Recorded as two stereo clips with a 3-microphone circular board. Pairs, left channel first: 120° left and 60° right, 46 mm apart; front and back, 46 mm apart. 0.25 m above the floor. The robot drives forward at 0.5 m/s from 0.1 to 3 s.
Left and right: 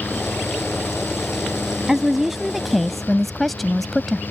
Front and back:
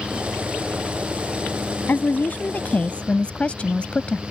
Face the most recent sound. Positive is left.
turn(degrees=35)